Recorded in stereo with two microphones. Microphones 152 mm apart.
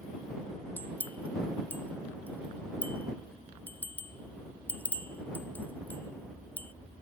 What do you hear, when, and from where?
0.8 s a bell: 10° left (ahead or behind)